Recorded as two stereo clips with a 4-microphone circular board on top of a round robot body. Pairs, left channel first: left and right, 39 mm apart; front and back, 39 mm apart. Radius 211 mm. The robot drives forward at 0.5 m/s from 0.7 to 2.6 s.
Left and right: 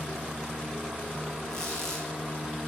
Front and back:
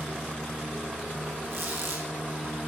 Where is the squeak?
165° left, 3.5 m.